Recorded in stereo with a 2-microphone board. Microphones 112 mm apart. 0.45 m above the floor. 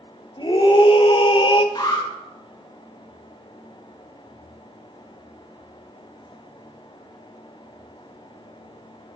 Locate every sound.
0.4 s a scream: 45° left (ahead or behind), 1.4 m; by 1.6 s 50° left (ahead or behind), 1.3 m
1.8 s an alarm: 35° left (ahead or behind), 6.5 m